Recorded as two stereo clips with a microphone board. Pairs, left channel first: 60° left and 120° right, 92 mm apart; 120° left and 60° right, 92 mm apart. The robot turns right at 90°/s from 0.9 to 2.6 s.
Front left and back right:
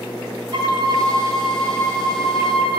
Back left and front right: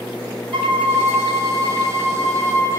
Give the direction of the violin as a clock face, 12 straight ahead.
3 o'clock.